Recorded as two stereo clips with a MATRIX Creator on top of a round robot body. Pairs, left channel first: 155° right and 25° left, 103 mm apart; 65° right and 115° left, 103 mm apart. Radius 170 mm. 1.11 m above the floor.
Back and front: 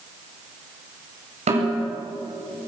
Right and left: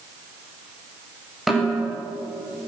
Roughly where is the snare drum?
Ahead left.